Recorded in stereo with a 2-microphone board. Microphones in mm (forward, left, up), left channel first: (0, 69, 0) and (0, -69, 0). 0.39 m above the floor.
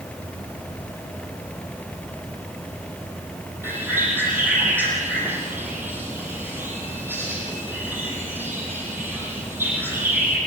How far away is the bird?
About 7.5 m.